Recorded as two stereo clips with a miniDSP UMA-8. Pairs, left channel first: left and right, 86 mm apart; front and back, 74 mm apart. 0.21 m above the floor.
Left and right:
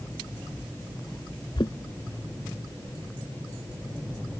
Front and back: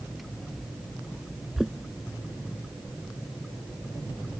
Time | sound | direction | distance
1.6 | knocking | 95° left | ?